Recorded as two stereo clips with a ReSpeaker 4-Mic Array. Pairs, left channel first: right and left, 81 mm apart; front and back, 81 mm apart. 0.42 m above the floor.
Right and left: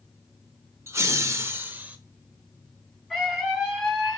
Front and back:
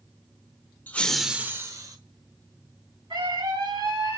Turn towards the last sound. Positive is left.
turn(degrees=-175)